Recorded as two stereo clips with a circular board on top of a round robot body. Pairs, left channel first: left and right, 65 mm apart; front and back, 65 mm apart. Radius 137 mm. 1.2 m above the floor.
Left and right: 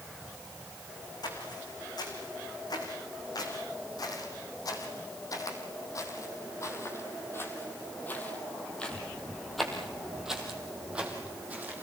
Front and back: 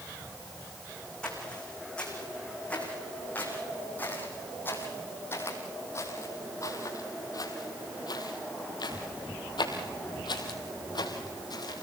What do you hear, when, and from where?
1.2 s footsteps: 75° left, 5.5 m; by 11.8 s 25° right, 3.5 m